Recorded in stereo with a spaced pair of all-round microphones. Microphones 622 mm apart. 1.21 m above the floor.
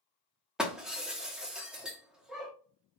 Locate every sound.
0.6 s breaking glass: centre (ahead or behind), 0.8 m